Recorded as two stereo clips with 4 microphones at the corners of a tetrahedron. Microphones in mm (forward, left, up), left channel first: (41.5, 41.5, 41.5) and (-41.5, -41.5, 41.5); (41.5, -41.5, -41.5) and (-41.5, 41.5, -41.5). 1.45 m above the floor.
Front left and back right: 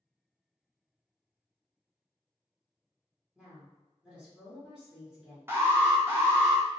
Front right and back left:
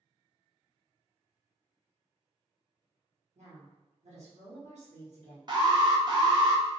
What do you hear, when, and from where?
3.4 s a woman speaking: 140° left, 1.1 m
5.5 s an alarm: 165° left, 0.6 m